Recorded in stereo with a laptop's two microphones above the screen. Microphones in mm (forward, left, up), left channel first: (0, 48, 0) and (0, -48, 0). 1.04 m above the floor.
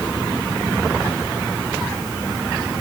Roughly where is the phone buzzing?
I don't hear a phone buzzing.